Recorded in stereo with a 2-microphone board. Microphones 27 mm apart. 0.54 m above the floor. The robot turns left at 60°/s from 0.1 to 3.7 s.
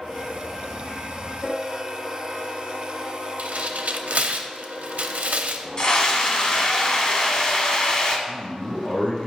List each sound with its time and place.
3.4 s tearing paper: 65° right (ahead or behind), 0.6 m; by 5.7 s 80° right, 0.6 m
5.8 s a scream: 35° left (ahead or behind), 1.5 m
8.3 s a man speaking: 70° left (ahead or behind), 3 m